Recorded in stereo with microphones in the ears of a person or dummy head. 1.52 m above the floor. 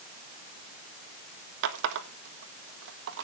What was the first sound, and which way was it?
A running tap, 65° right (ahead or behind).